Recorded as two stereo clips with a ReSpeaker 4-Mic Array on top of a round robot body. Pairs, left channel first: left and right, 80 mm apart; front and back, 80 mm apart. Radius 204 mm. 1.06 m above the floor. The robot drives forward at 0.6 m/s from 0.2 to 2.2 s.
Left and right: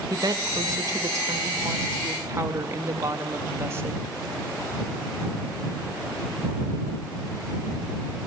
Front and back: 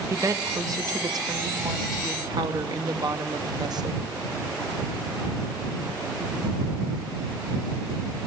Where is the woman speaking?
130° right, 2 m; by 4.0 s 150° right, 3 m.